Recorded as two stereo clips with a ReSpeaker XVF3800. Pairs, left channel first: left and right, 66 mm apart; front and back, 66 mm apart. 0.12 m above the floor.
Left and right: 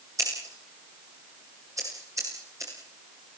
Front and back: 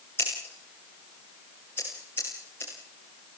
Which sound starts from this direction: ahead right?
Scissors, at 0.2 s.